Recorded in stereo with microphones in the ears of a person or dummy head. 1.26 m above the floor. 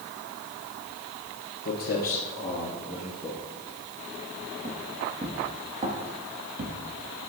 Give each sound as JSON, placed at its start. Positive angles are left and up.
{"t": 1.6, "sound": "footsteps", "side_deg": 45, "distance_m": 1.6}